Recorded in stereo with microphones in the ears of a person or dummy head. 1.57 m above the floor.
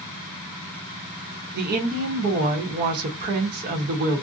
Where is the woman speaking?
55° right (ahead or behind), 0.9 m.